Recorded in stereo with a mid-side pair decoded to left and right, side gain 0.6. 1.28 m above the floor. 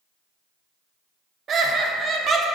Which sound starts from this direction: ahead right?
Laughter, at 1.5 s.